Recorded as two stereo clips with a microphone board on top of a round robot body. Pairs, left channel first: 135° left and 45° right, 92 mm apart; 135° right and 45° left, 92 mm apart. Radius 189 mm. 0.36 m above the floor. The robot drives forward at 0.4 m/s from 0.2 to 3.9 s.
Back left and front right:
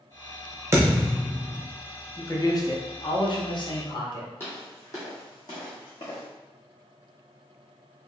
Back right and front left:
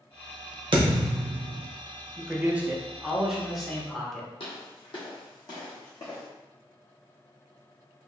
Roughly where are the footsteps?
Behind.